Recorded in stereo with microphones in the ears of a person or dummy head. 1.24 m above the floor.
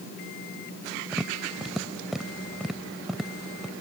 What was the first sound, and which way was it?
Tapping, 5° right (ahead or behind).